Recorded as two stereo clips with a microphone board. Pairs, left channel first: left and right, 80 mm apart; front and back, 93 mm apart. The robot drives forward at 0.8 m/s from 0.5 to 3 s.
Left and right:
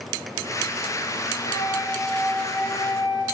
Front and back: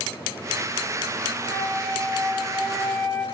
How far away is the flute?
About 7 m.